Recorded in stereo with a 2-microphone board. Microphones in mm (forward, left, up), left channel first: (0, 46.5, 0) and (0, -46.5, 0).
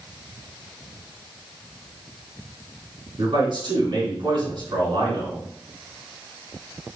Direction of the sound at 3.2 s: 55° right (ahead or behind).